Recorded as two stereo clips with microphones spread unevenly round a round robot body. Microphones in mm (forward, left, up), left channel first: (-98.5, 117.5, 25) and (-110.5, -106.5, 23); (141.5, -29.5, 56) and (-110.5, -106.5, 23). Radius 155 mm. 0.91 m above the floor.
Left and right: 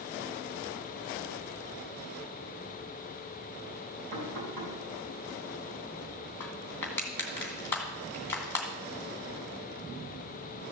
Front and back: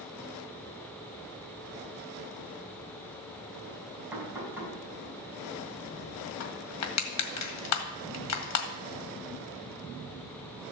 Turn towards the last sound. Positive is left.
turn(degrees=5)